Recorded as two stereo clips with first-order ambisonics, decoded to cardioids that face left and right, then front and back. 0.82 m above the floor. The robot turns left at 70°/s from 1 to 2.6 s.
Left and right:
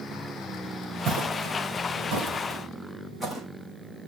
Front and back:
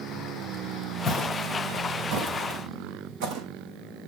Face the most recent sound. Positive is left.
turn(degrees=-175)